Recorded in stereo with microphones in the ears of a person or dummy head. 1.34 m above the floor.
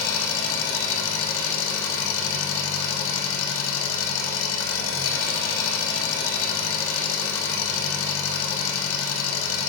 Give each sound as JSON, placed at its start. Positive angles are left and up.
{"t": 0.0, "sound": "an engine running", "side_deg": 65, "distance_m": 0.8}